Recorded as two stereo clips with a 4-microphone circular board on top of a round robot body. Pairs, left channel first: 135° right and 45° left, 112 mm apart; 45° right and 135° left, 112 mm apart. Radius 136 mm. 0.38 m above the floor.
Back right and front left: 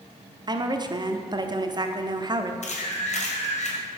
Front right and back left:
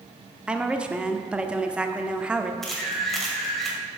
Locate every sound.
0.5 s a woman speaking: 60° left, 1.0 m
2.6 s a camera shutter: 135° right, 2 m